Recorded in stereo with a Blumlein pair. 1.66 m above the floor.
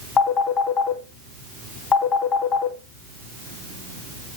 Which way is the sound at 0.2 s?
25° left.